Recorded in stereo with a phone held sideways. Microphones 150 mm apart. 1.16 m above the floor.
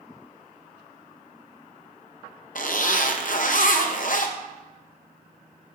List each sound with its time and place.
2.5 s a zipper: 60° left (ahead or behind), 0.8 m